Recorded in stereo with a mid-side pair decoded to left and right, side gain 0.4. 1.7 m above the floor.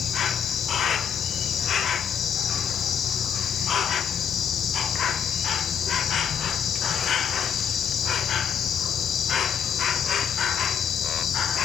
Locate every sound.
0.0 s an insect: 65° left, 0.8 m